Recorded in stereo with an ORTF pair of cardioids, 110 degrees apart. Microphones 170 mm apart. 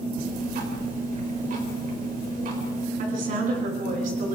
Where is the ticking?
55° right, 5 m.